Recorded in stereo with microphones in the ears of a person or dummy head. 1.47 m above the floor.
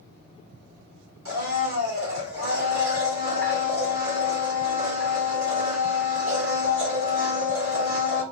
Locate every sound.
1.2 s a blender: 70° right (ahead or behind), 2 m